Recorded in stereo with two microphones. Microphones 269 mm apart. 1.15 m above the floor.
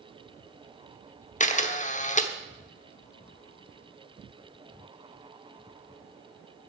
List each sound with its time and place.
1.4 s a camera shutter: 30° left (ahead or behind), 0.9 m